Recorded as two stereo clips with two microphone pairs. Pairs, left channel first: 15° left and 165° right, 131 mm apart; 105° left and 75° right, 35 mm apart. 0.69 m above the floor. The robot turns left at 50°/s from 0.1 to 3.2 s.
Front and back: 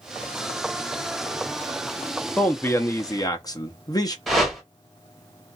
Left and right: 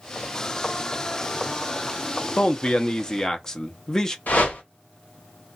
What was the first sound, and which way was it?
A man speaking, 85° left.